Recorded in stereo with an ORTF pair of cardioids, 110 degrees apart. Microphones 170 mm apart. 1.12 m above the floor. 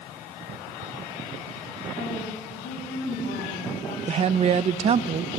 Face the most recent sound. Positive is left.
turn(degrees=-40)